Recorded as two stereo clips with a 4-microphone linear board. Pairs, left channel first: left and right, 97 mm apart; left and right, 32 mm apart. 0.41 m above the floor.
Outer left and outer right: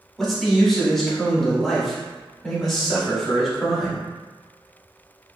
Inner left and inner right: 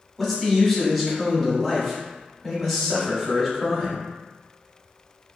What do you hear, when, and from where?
0.2 s a man speaking: centre (ahead or behind), 0.9 m